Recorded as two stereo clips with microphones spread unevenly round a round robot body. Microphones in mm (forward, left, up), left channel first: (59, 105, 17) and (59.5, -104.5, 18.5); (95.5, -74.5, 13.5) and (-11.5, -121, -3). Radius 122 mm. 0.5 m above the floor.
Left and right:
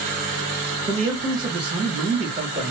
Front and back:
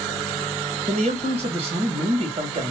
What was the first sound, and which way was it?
A man speaking, 160° right.